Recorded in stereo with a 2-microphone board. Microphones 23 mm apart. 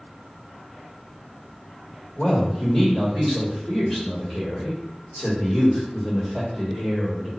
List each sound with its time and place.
2.2 s a man speaking: 25° left (ahead or behind), 1.8 m